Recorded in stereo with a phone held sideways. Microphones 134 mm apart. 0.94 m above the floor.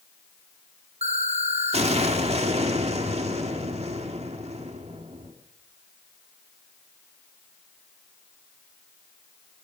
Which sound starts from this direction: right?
An explosion, at 1.0 s.